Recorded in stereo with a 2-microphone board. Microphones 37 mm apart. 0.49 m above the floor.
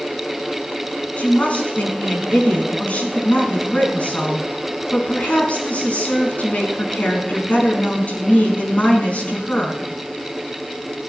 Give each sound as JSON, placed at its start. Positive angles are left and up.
{"t": 1.2, "sound": "a woman speaking", "side_deg": 40, "distance_m": 5.0}